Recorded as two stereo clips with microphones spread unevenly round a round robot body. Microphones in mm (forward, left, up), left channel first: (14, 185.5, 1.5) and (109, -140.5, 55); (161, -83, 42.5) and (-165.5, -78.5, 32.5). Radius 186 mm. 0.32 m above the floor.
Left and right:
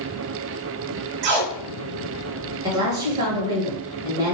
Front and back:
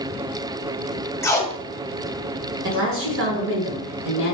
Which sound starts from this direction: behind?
A woman speaking, at 2.6 s.